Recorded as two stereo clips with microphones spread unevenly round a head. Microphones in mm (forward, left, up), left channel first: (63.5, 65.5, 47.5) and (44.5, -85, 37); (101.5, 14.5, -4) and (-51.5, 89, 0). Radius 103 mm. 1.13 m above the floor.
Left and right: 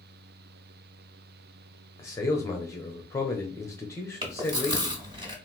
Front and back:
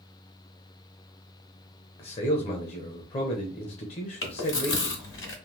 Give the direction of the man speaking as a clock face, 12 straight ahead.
12 o'clock.